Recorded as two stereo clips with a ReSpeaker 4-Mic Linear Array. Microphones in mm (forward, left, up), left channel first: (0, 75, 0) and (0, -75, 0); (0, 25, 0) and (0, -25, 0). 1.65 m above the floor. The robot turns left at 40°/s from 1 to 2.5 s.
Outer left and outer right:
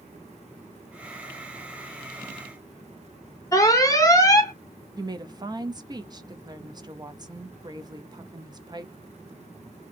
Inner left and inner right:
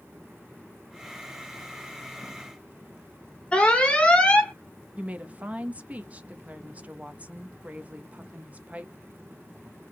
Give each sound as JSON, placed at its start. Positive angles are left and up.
{"t": 3.5, "sound": "an alarm", "side_deg": 20, "distance_m": 0.9}
{"t": 5.0, "sound": "a woman speaking", "side_deg": -30, "distance_m": 0.7}